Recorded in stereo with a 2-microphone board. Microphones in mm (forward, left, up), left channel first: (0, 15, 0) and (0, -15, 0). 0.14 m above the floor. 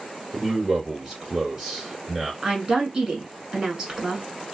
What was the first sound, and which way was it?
A man speaking, 20° right (ahead or behind).